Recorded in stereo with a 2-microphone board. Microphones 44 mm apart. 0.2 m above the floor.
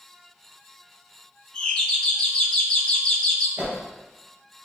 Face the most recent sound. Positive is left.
turn(degrees=-35)  # may be behind; listen again after turning